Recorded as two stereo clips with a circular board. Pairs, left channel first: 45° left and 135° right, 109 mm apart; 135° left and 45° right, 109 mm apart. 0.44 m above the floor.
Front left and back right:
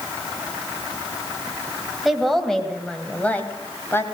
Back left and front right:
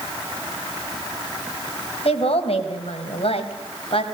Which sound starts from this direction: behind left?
A woman speaking, at 2.0 s.